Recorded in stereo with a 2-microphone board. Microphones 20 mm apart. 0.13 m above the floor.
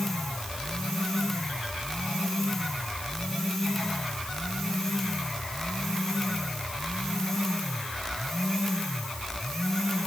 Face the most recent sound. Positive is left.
No sound to turn to.